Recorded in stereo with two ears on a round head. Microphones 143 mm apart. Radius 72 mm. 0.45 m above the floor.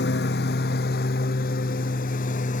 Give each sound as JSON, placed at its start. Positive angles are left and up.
{"t": 0.0, "sound": "a lawn mower", "side_deg": 75}